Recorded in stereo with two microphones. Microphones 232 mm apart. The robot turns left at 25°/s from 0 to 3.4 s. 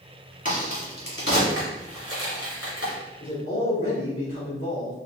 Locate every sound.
0.5 s a crack: 35° left (ahead or behind), 1.6 m; by 2.9 s 80° left, 1.6 m
3.2 s a man speaking: 60° left (ahead or behind), 2.0 m; by 5.0 s 65° left (ahead or behind), 2.0 m